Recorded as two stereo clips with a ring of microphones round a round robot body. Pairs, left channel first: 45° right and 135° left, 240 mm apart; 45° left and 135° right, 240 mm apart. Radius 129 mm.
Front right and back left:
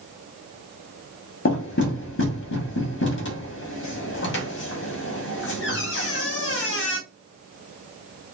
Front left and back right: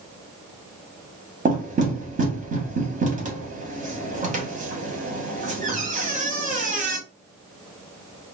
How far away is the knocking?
About 1.0 m.